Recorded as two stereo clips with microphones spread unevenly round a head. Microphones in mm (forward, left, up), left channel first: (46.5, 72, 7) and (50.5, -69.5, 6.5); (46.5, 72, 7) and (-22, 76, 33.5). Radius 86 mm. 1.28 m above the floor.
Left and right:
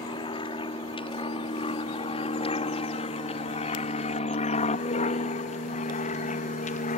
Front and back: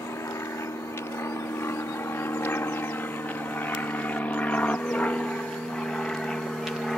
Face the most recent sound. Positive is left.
turn(degrees=80)